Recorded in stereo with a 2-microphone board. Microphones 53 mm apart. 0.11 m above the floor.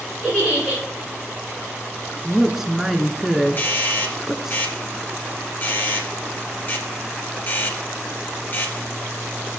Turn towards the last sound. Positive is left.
turn(degrees=40)  # may be behind; listen again after turning